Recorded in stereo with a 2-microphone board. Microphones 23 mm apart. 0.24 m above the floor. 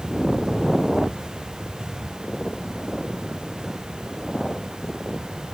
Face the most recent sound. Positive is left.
No sound to turn to.